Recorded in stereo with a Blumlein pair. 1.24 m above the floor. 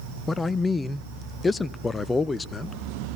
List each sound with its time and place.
0.3 s a man speaking: 15° left, 0.7 m